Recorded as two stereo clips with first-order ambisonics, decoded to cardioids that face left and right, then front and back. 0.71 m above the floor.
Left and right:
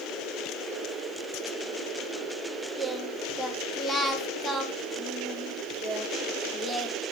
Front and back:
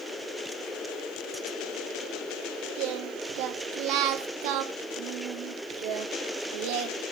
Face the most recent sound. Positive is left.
turn(degrees=175)